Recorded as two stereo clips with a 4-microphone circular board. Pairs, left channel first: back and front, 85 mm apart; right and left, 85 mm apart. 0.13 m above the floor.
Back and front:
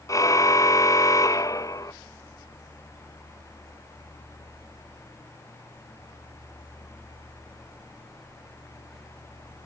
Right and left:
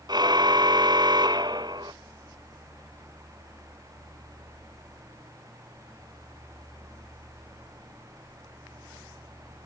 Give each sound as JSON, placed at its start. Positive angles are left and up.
{"t": 0.1, "sound": "a car horn", "azimuth_deg": 130}